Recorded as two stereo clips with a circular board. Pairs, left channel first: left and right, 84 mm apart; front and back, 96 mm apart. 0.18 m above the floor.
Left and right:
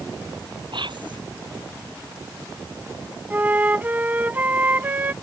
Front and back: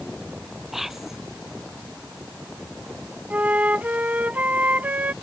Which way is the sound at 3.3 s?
130° right.